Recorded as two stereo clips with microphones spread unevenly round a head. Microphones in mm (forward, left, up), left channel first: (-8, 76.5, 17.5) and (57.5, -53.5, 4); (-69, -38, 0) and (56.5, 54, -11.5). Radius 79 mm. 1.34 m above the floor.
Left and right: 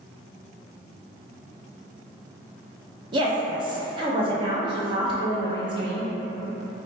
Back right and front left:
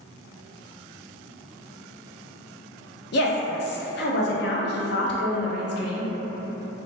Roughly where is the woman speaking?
Behind right.